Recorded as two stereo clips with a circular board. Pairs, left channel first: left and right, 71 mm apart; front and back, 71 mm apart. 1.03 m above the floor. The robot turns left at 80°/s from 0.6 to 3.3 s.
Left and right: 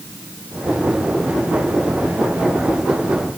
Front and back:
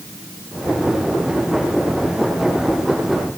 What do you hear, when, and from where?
Only background noise.